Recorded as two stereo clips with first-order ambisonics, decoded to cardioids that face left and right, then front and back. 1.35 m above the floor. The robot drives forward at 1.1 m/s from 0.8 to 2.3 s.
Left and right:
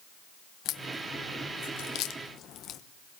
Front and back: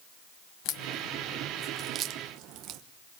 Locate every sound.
0.7 s a crack: 40° left, 1.1 m; by 2.8 s 140° left, 1.1 m